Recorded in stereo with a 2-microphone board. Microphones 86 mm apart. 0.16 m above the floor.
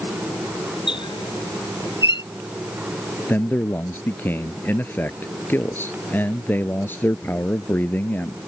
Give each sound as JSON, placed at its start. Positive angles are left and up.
{"t": 0.9, "sound": "a squeak", "side_deg": 65}
{"t": 3.3, "sound": "a man speaking", "side_deg": 20}